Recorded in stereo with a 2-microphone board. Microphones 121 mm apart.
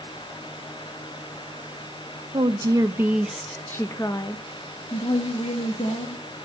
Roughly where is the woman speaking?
Right.